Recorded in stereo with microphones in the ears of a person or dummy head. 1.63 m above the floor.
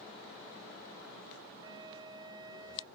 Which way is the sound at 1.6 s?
20° right (ahead or behind).